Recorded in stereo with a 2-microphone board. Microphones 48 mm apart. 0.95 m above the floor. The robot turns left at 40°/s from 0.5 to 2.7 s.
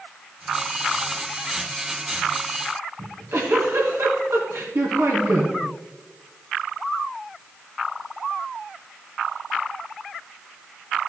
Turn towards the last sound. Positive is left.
turn(degrees=-75)  # may be behind; listen again after turning